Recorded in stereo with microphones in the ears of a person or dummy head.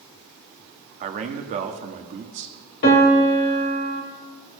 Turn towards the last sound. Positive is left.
turn(degrees=60)  # may be behind; listen again after turning